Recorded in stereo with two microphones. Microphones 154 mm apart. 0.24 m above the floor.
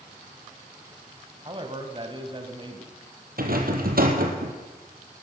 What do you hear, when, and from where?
1.4 s a man speaking: 35° right (ahead or behind), 1.5 m
3.4 s a rattle: 75° right (ahead or behind), 2 m